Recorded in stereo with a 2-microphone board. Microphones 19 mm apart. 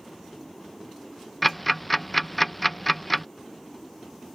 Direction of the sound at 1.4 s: Centre (ahead or behind).